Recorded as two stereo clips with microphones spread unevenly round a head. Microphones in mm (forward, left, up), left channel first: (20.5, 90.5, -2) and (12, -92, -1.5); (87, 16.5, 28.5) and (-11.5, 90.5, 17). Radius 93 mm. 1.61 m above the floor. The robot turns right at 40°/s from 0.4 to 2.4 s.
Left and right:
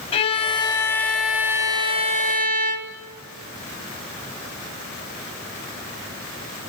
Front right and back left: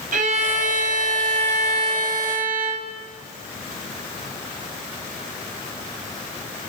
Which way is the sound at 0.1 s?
145° left.